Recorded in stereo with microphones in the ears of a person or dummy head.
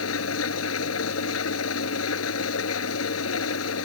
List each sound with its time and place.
0.0 s an engine running: 85° left